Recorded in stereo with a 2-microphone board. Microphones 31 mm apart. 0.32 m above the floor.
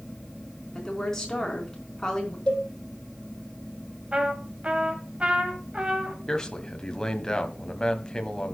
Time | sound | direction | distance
0.7 | a woman speaking | 15° left (ahead or behind) | 4 m
2.5 | a cowbell | 25° left (ahead or behind) | 5.5 m
4.1 | a trumpet | 40° right (ahead or behind) | 2 m
6.3 | a man speaking | 20° left (ahead or behind) | 1.6 m